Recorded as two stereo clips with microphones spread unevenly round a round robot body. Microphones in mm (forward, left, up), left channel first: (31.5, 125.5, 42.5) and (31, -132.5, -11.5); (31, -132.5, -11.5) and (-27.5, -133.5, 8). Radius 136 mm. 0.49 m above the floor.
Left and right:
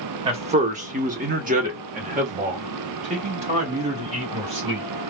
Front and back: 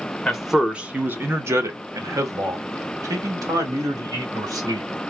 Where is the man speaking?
55° right, 0.8 m; by 4.9 s 155° right, 2.5 m.